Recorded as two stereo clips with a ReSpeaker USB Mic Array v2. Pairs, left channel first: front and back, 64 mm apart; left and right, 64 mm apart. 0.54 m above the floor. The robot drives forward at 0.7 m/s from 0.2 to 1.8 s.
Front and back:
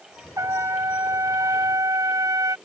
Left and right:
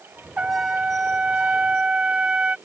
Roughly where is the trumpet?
Behind right.